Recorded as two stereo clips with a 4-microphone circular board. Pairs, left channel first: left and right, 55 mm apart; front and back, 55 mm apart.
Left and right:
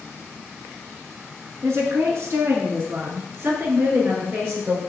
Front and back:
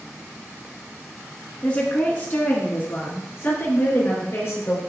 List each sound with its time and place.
1.6 s a woman speaking: 65° right, 2.5 m; by 4.8 s 40° right, 4.5 m